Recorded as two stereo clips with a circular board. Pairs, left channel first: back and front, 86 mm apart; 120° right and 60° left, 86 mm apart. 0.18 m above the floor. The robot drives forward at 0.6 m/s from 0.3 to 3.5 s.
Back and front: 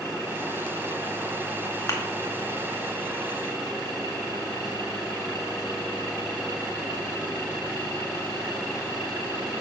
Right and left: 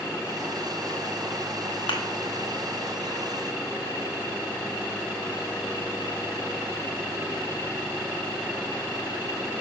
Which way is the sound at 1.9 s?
130° right.